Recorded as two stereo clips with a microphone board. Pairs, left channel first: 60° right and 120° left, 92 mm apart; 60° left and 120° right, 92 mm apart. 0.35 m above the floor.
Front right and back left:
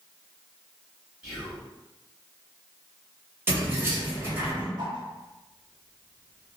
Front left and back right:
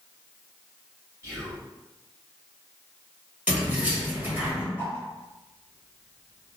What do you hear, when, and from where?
1.2 s whispering: 165° right, 1.7 m
3.5 s keys jangling: 170° left, 1.0 m
4.8 s a whoosh: 120° left, 0.7 m